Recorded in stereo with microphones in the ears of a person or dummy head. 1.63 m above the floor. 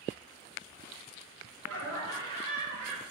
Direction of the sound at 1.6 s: 80° right.